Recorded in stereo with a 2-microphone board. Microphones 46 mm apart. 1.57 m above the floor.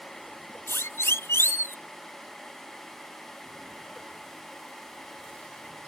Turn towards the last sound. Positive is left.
turn(degrees=80)